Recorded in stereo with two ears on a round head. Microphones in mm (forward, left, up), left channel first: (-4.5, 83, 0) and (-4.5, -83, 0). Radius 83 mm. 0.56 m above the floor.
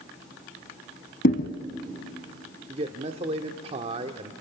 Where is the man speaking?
35° right (ahead or behind), 1.2 m.